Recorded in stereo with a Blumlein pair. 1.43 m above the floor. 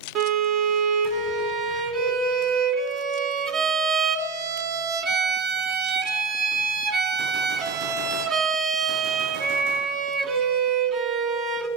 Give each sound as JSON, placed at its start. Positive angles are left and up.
{"t": 0.1, "sound": "a violin", "azimuth_deg": -35, "distance_m": 1.4}